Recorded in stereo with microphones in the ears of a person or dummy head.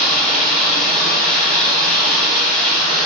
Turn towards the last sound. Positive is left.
turn(degrees=-50)  # may be behind; listen again after turning